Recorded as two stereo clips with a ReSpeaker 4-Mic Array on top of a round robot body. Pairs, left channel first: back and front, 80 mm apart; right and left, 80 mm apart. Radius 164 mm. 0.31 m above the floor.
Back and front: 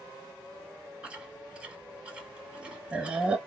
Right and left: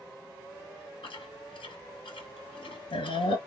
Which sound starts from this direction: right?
Chewing, at 1.0 s.